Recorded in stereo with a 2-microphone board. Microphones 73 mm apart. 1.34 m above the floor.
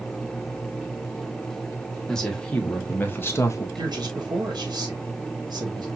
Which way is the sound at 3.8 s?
70° right (ahead or behind).